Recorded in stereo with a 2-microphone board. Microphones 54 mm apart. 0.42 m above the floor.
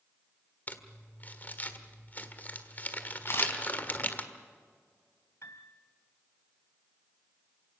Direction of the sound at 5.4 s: 60° left (ahead or behind).